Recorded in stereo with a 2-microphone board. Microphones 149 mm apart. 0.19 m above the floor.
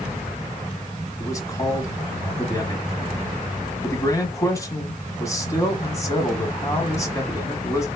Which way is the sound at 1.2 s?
20° left (ahead or behind).